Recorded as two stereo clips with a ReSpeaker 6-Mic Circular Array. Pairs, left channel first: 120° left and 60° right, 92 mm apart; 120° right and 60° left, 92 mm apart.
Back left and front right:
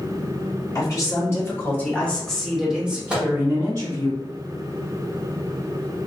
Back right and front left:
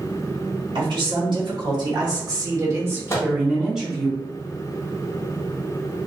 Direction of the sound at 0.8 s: 75° left.